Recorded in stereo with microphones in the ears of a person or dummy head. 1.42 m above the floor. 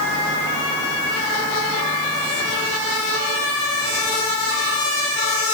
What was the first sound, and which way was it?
Only background noise.